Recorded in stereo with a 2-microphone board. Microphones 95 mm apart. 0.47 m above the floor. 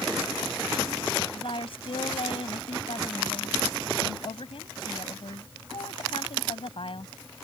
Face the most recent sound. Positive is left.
turn(degrees=70)  # may be behind; listen again after turning